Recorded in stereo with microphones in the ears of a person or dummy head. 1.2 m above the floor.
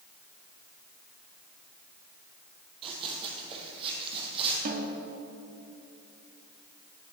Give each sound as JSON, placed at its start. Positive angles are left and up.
{"t": 2.8, "sound": "running footsteps", "side_deg": -35, "distance_m": 2.0}
{"t": 4.7, "sound": "a snare drum", "side_deg": -50, "distance_m": 1.3}